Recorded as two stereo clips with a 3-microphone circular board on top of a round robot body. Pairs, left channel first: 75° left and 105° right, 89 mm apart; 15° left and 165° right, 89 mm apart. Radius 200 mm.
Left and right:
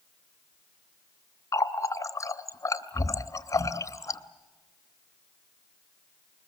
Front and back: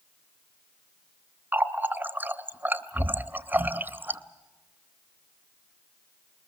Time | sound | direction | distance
1.5 | a running tap | 125° left | 0.9 m